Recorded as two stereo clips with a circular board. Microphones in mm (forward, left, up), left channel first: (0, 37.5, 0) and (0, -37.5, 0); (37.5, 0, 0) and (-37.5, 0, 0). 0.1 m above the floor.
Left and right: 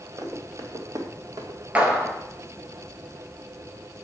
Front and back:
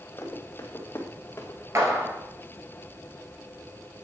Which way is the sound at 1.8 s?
155° right.